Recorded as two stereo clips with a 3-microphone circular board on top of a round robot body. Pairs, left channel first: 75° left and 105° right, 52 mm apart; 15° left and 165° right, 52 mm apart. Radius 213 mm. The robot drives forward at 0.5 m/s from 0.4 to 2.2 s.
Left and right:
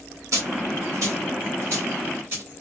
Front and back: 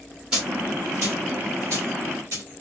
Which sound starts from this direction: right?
A dropped coin, at 0.3 s.